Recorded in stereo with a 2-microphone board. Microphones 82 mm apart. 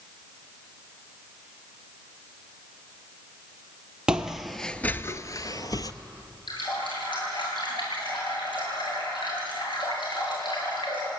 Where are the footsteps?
10° right (ahead or behind), 1.3 m; by 5.9 s 50° left (ahead or behind), 1.3 m.